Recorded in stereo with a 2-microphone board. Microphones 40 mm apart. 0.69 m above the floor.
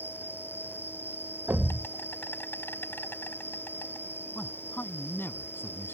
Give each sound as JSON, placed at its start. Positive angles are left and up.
{"t": 0.0, "sound": "an insect", "side_deg": 70}
{"t": 1.5, "sound": "a thud", "side_deg": -75}
{"t": 4.3, "sound": "a man speaking", "side_deg": 70}